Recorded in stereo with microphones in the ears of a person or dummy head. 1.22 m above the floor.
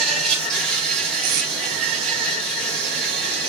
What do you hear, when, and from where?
0.0 s an insect: 5° left (ahead or behind), 1.8 m
1.2 s tape being pulled: 45° right (ahead or behind), 1.5 m